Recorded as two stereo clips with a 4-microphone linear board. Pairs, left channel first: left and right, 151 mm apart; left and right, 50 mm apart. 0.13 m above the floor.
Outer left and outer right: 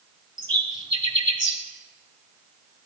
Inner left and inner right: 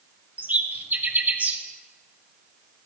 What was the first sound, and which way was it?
A bird, 30° right (ahead or behind).